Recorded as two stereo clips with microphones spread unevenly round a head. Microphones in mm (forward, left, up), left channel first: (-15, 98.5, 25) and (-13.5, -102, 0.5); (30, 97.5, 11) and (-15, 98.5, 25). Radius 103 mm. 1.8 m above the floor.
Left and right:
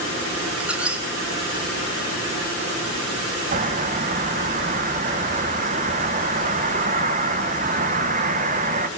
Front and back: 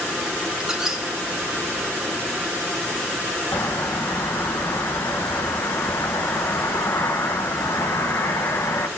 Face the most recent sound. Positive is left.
turn(degrees=-50)